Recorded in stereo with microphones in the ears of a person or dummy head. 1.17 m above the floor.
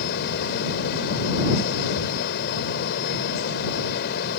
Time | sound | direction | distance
0.0 | a fan | 60° left (ahead or behind) | ?